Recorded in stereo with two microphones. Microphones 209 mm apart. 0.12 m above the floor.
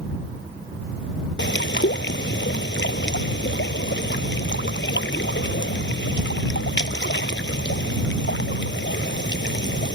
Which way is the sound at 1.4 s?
60° left (ahead or behind).